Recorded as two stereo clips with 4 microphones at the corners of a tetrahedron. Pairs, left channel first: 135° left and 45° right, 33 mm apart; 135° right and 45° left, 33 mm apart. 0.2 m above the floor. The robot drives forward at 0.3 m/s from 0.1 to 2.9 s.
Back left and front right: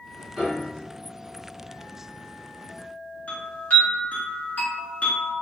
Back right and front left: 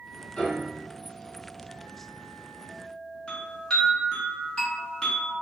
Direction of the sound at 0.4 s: 105° right.